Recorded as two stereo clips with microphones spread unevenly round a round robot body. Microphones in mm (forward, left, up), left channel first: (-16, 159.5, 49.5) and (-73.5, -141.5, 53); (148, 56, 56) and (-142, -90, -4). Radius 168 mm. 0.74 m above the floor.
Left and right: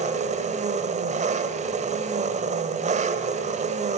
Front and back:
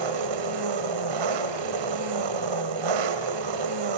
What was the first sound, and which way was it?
An engine running, 170° right.